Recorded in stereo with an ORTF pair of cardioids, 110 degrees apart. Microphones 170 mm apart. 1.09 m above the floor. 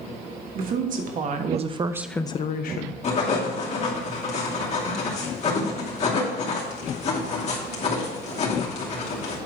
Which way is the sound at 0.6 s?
60° right.